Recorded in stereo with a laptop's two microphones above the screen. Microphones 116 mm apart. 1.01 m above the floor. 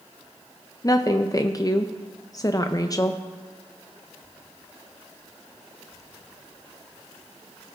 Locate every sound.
0.8 s a woman speaking: 30° left (ahead or behind), 0.5 m